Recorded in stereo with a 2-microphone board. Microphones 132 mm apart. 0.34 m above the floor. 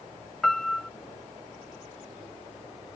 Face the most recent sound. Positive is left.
turn(degrees=5)  # may be behind; listen again after turning